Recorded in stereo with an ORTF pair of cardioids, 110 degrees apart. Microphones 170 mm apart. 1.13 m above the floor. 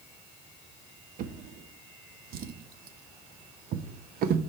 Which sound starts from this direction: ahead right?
A drawer, at 1.2 s.